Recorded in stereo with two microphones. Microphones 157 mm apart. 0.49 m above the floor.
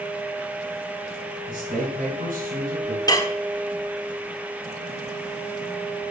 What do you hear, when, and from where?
1.5 s a man speaking: 60° right (ahead or behind), 3 m
3.1 s dishes clattering: 25° left (ahead or behind), 0.7 m